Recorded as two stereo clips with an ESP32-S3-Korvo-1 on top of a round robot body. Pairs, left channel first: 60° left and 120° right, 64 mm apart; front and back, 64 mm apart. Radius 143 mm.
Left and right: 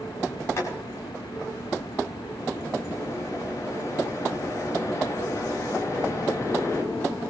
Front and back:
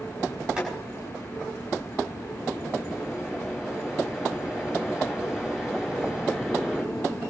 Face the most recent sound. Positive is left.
turn(degrees=105)